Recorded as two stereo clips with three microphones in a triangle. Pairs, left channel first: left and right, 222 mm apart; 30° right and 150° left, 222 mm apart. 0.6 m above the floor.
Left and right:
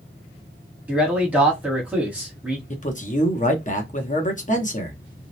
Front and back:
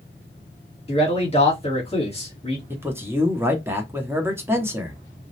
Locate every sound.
0.9 s a man speaking: 10° right, 1.2 m
2.7 s a man speaking: 80° left, 0.7 m